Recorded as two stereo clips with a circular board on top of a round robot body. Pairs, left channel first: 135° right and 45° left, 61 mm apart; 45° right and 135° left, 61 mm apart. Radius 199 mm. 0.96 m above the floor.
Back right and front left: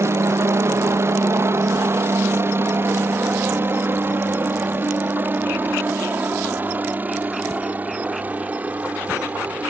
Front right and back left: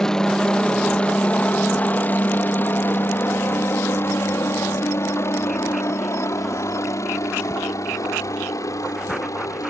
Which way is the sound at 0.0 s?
35° left.